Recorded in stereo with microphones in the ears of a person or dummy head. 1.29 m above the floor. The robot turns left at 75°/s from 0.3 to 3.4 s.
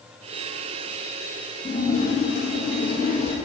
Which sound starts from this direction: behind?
A splash, at 1.6 s.